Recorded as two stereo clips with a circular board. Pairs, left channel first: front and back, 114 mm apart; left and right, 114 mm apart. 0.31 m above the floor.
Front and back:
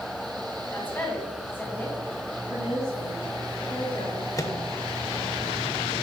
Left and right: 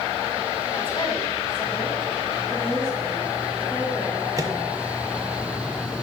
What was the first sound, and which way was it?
A woman speaking, 70° left.